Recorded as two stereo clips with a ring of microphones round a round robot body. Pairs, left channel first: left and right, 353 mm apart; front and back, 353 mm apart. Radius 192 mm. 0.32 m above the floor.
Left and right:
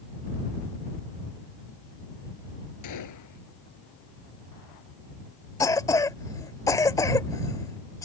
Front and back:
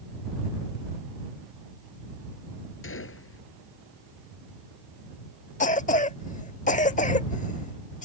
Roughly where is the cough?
Ahead left.